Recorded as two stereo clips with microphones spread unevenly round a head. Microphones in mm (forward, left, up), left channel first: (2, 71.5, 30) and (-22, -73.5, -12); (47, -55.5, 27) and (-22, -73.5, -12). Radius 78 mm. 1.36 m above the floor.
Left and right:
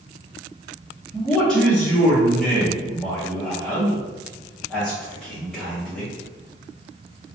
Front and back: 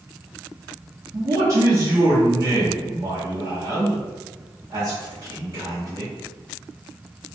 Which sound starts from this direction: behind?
A man speaking, at 1.1 s.